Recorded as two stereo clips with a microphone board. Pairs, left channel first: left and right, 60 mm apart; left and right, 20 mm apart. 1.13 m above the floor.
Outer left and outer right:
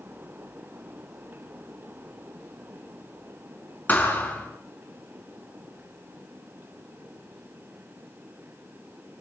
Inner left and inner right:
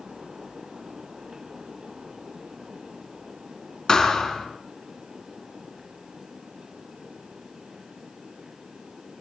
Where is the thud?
30° left (ahead or behind), 4.5 m.